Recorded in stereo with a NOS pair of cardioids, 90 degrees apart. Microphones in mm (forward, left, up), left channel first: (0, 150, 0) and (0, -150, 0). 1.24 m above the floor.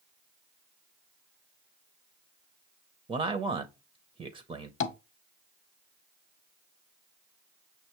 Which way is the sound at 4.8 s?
45° left.